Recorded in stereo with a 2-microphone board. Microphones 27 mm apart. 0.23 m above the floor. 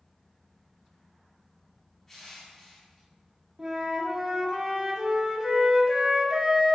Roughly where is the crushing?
Centre.